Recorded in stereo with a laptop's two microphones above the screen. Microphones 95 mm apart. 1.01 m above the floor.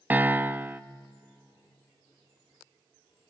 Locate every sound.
0.1 s a piano: 20° right (ahead or behind), 0.7 m